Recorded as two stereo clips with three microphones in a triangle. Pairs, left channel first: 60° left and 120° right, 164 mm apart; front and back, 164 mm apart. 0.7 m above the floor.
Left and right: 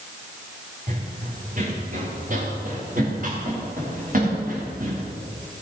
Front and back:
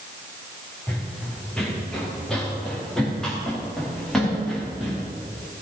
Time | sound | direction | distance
0.9 | running footsteps | 85° right | 4.5 m